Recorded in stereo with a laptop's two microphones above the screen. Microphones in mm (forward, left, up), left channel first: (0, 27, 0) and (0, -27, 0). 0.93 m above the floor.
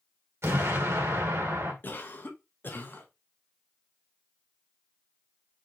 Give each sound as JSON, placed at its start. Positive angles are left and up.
{"t": 0.4, "sound": "an explosion", "side_deg": -50, "distance_m": 2.0}
{"t": 1.8, "sound": "a cough", "side_deg": 40, "distance_m": 0.9}